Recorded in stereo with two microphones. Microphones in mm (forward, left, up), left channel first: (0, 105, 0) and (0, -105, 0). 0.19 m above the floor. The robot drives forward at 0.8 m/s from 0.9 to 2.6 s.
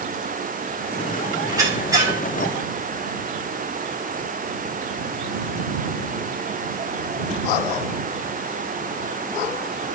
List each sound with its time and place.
1.5 s a squeak: 15° right (ahead or behind), 8 m